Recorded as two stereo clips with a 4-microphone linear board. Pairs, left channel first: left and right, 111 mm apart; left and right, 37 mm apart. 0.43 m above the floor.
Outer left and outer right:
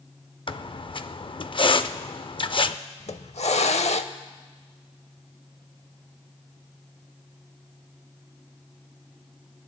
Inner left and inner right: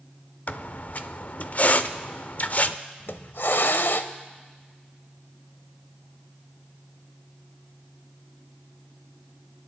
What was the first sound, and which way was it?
A squeak, 45° left (ahead or behind).